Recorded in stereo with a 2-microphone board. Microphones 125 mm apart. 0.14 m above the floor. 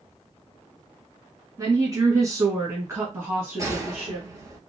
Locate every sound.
1.6 s a woman speaking: 30° right (ahead or behind), 1.4 m; by 4.3 s 10° right (ahead or behind), 1.4 m
3.6 s a gunshot: 25° right (ahead or behind), 1.2 m